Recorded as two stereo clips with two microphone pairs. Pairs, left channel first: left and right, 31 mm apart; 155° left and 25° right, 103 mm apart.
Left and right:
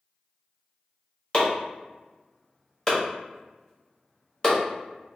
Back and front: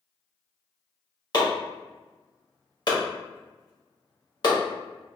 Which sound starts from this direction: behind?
Chopping, at 1.3 s.